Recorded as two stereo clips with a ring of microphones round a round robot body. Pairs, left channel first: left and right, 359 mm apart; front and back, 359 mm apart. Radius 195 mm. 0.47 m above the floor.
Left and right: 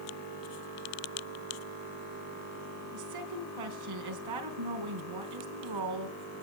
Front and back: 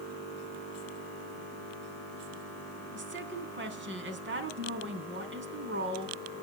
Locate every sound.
2.9 s a woman speaking: 120° right, 4 m